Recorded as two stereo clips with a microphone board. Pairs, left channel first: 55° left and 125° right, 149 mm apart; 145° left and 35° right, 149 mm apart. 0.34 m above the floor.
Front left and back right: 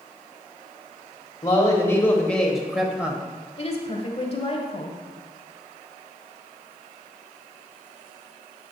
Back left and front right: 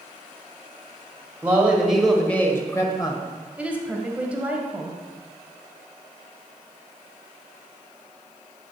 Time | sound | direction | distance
1.4 | a man speaking | 25° left | 1.1 m
3.6 | a woman speaking | 40° left | 1.1 m